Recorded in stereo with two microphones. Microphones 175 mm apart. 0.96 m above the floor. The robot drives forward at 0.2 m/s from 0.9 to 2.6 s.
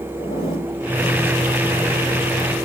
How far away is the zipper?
About 3 m.